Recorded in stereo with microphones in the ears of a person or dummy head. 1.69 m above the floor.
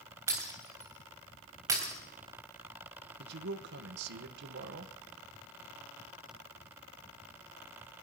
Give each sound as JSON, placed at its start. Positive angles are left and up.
{"t": 0.3, "sound": "breaking glass", "side_deg": -20, "distance_m": 3.5}
{"t": 3.2, "sound": "a man speaking", "side_deg": -65, "distance_m": 1.2}